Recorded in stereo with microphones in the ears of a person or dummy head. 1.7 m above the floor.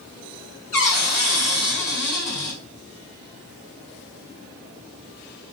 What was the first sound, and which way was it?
A cupboard door, 45° left (ahead or behind).